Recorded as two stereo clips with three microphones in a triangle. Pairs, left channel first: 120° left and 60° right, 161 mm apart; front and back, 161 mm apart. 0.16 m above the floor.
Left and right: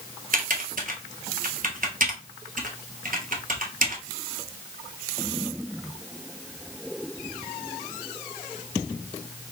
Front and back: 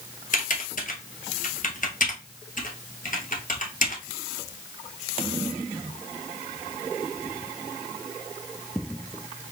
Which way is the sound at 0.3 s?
30° right.